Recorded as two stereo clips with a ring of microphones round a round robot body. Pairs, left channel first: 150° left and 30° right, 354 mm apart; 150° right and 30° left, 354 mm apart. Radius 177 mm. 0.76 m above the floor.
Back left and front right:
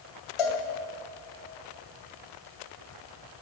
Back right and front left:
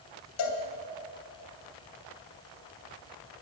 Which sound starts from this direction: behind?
A cowbell, at 0.4 s.